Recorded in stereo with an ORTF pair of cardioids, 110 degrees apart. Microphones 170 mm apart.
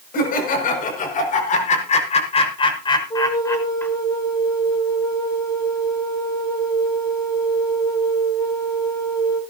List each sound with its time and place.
0.1 s laughter: 65° left, 7 m; by 3.9 s 10° left, 5 m
3.1 s a flute: 25° left, 7.5 m